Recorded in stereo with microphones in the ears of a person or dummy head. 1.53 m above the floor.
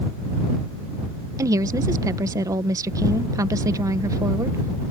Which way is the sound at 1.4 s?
15° right (ahead or behind).